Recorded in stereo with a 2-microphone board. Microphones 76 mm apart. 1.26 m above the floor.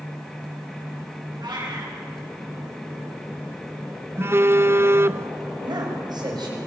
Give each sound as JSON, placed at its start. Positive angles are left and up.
{"t": 1.4, "sound": "a cat meowing", "side_deg": -70, "distance_m": 7.0}
{"t": 4.2, "sound": "a phone buzzing", "side_deg": -35, "distance_m": 0.8}
{"t": 5.6, "sound": "a man speaking", "side_deg": -65, "distance_m": 7.5}